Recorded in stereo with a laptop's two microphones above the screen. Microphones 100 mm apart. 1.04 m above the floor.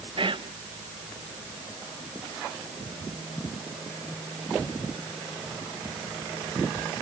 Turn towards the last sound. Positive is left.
turn(degrees=-55)  # may be behind; listen again after turning